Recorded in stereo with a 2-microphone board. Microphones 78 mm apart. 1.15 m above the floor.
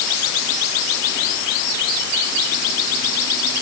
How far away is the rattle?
No rattle in this recording.